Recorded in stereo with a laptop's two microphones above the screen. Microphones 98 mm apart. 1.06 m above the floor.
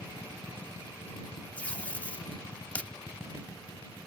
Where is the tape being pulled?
15° left (ahead or behind).